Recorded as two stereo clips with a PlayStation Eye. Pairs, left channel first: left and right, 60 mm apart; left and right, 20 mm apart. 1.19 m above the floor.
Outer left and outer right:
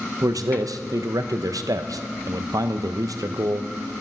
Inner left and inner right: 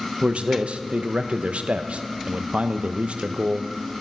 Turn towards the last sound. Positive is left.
turn(degrees=-80)